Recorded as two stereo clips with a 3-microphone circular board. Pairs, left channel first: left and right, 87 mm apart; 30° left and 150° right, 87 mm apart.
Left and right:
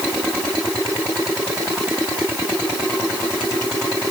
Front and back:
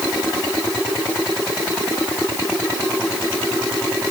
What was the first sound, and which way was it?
Only background noise.